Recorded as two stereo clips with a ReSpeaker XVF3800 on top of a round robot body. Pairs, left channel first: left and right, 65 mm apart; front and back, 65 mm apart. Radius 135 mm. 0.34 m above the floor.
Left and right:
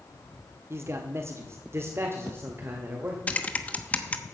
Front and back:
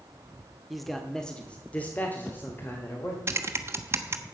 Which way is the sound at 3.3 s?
150° left.